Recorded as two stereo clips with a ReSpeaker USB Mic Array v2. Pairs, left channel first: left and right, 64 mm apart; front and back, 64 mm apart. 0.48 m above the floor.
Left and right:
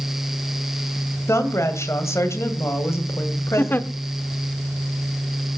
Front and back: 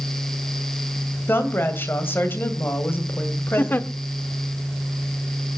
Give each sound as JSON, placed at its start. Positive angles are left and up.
{"t": 1.3, "sound": "a woman speaking", "azimuth_deg": 50, "distance_m": 2.0}
{"t": 3.6, "sound": "a giggle", "azimuth_deg": 45, "distance_m": 0.7}